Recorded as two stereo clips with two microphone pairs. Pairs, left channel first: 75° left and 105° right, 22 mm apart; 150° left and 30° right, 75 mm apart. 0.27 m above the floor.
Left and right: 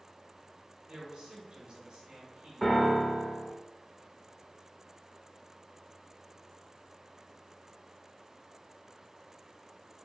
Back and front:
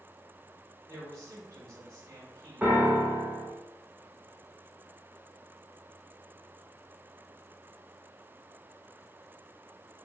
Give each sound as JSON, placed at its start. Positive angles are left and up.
{"t": 0.9, "sound": "a man speaking", "azimuth_deg": -75, "distance_m": 2.0}
{"t": 2.6, "sound": "a piano", "azimuth_deg": 25, "distance_m": 0.9}